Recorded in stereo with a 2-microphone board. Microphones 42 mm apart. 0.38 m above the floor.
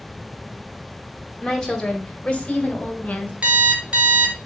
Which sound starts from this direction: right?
An alarm clock, at 3.4 s.